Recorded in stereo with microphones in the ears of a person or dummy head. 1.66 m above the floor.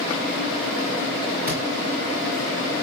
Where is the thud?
20° right (ahead or behind), 2.5 m.